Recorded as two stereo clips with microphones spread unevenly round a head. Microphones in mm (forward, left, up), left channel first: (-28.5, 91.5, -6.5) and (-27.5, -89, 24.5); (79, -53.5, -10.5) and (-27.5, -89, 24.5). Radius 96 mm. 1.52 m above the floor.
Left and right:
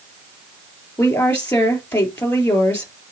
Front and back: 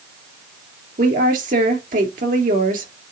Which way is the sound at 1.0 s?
175° left.